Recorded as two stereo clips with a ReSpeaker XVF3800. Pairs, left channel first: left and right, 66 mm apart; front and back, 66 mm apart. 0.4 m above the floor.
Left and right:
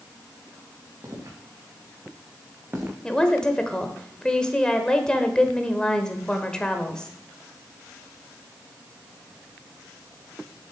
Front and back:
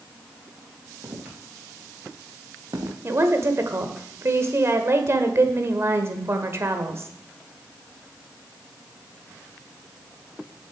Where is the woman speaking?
165° left, 1.2 m.